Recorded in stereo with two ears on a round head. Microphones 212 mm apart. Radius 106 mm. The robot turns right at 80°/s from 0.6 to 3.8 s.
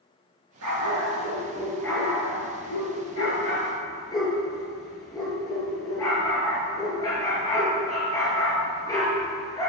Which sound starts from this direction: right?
A dog barking, at 0.6 s.